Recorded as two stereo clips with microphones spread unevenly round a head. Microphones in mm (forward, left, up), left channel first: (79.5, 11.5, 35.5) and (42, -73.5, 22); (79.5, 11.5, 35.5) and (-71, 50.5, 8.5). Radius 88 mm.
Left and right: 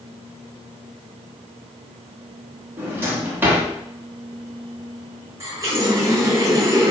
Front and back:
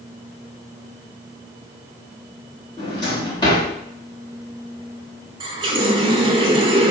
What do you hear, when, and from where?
2.8 s a drawer: 45° right, 1.3 m
5.4 s a running tap: 150° right, 0.7 m